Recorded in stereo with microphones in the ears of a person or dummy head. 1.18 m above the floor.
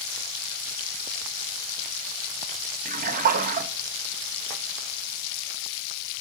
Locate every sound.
2.9 s a splash: 40° right (ahead or behind), 1.3 m